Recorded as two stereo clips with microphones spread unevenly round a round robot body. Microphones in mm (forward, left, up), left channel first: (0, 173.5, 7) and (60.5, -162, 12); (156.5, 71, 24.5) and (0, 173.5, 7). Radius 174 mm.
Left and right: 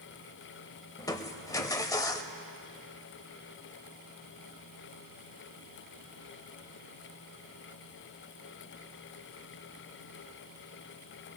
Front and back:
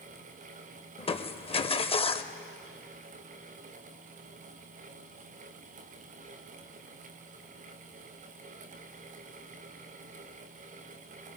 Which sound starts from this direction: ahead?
Crushing, at 1.0 s.